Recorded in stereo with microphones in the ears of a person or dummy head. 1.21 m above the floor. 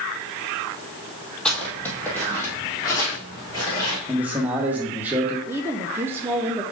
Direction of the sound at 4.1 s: 10° right (ahead or behind).